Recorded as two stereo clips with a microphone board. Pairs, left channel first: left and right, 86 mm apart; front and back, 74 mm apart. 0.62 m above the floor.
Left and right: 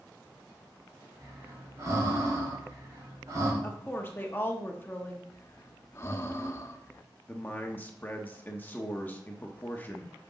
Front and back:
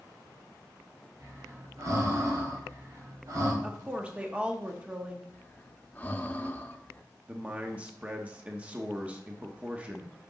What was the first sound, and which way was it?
Breathing, 140° right.